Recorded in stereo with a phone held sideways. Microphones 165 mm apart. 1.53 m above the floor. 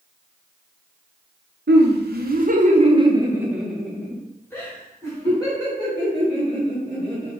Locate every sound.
1.7 s laughter: 85° right, 0.9 m; by 7.3 s 30° left (ahead or behind), 3 m